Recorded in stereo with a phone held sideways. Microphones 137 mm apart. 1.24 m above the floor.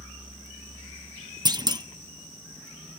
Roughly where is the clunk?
Right.